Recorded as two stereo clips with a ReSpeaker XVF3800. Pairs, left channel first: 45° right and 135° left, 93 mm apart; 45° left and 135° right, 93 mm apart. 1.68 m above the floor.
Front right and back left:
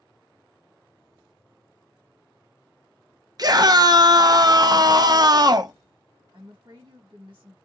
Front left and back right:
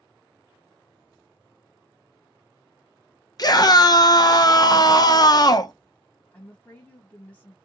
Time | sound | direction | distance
3.4 | a scream | 90° left | 0.6 m
6.3 | a woman speaking | 110° left | 1.4 m